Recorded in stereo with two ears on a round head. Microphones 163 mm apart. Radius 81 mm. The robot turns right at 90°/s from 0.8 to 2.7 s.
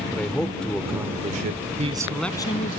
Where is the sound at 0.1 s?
175° left; by 1.6 s 110° right.